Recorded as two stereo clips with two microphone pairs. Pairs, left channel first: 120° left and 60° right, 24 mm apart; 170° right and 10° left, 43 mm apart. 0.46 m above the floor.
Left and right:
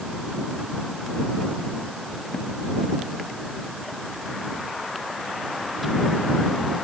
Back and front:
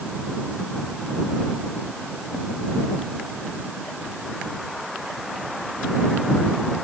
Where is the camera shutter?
No camera shutter in this recording.